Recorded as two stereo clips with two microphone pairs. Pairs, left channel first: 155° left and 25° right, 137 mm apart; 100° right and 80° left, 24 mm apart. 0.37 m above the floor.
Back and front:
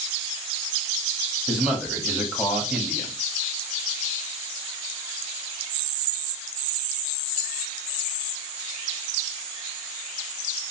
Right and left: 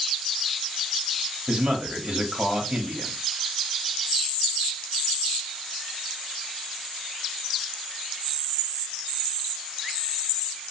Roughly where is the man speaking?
Ahead left.